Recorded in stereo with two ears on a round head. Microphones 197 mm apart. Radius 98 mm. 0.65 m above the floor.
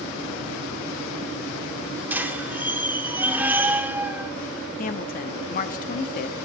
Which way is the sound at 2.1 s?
10° right (ahead or behind).